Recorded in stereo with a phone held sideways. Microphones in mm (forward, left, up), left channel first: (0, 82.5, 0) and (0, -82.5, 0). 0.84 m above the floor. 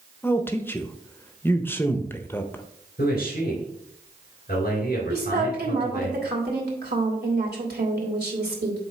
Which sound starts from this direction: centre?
A man speaking, at 0.2 s.